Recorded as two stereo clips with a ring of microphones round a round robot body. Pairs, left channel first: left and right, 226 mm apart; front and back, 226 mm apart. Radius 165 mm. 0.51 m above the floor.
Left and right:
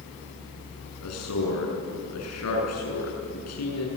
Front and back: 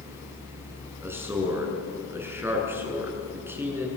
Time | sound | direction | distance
1.0 | a man speaking | 100° left | 7 m